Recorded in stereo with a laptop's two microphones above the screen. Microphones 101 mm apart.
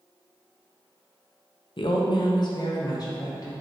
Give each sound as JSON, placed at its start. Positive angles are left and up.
{"t": 1.8, "sound": "a woman speaking", "side_deg": 60, "distance_m": 0.5}